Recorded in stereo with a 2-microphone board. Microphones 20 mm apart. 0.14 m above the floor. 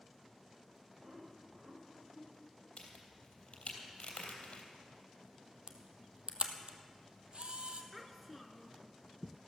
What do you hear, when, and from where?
1.0 s laughter: 55° right (ahead or behind), 5.5 m; by 2.7 s 75° right (ahead or behind), 6 m
2.8 s a crack: 65° left (ahead or behind), 3 m
5.7 s a camera shutter: 55° right (ahead or behind), 1.2 m
7.9 s a child speaking: centre (ahead or behind), 0.9 m